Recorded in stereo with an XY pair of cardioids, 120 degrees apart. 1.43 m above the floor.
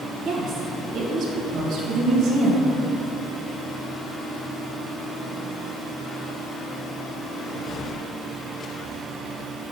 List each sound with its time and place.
0.2 s a woman speaking: 65° right, 1.5 m